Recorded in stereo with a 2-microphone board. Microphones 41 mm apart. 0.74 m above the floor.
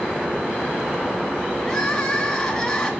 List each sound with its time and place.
1.6 s crying: 10° left (ahead or behind), 2 m